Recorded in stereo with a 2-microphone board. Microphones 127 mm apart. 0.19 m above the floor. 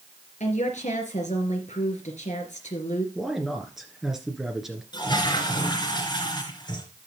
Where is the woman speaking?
70° left (ahead or behind), 3 m.